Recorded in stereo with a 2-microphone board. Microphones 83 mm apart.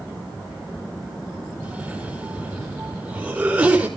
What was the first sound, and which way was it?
A cough, 15° right (ahead or behind).